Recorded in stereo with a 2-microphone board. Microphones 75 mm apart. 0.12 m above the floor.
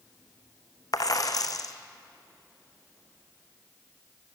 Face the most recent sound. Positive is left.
turn(degrees=55)  # may be behind; listen again after turning